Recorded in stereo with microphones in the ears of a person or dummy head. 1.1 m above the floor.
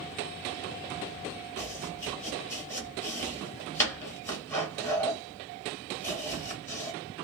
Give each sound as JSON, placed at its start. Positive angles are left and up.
{"t": 1.6, "sound": "chopping", "side_deg": 10, "distance_m": 1.0}